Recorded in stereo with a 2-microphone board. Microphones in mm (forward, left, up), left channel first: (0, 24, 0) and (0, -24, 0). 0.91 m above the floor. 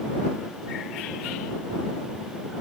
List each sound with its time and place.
Only background noise.